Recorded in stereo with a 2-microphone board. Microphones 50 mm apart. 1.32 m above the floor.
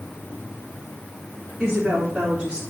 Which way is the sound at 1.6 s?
15° right (ahead or behind).